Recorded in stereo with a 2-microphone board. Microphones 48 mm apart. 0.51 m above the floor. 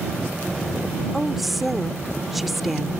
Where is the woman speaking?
Centre (ahead or behind).